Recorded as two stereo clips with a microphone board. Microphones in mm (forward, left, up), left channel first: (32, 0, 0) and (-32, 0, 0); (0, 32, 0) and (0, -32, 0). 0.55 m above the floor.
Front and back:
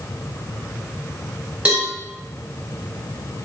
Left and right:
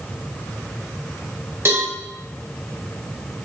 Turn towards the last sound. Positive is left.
turn(degrees=-120)